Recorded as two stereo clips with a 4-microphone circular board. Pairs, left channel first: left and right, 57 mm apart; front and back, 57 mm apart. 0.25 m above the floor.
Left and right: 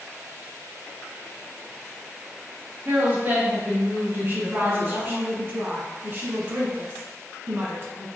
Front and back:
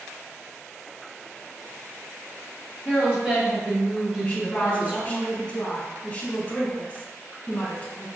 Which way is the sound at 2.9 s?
115° right.